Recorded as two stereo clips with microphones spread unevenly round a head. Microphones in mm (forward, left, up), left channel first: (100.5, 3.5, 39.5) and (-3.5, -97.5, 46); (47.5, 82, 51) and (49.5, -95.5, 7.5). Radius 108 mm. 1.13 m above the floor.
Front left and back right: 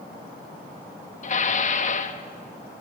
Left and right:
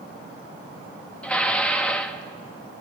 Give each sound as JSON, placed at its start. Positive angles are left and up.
{"t": 1.2, "sound": "dishes clattering", "azimuth_deg": 5, "distance_m": 1.2}